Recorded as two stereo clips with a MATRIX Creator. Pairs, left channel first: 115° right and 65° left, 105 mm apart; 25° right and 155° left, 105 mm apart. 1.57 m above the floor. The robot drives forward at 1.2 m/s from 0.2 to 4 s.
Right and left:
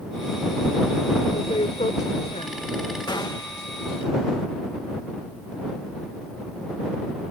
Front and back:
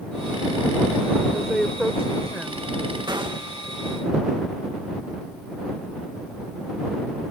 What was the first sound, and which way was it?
A woman speaking, 110° right.